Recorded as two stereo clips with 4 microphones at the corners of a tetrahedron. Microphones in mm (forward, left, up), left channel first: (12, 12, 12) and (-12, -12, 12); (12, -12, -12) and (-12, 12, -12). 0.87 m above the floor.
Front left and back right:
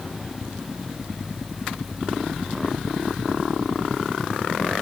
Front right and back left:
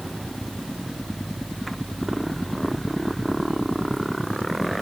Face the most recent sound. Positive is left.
No sound to turn to.